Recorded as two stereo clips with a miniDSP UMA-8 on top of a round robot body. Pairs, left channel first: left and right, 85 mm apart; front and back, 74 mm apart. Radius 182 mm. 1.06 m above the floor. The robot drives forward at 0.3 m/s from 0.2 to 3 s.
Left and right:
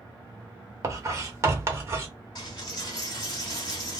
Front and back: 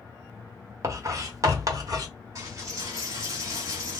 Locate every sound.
0.8 s writing: 135° right, 1.1 m; by 2.1 s 150° right, 1.4 m
2.4 s a dropped coin: 130° left, 1.2 m; by 4.0 s 135° left, 1.4 m